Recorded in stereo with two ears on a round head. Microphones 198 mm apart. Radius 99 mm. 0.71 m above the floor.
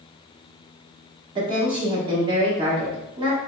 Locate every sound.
1.4 s a woman speaking: 25° right (ahead or behind), 1.5 m